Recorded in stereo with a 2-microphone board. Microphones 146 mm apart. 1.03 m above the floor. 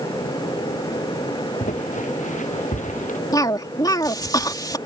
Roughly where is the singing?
No singing in this recording.